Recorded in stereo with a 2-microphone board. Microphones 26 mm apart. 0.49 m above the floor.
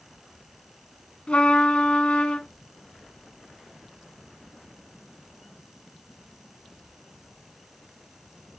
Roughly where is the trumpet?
Left.